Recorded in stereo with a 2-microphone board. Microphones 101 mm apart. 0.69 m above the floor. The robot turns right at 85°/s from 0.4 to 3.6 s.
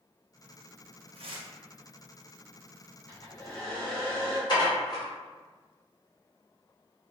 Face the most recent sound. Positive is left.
turn(degrees=45)  # may be behind; listen again after turning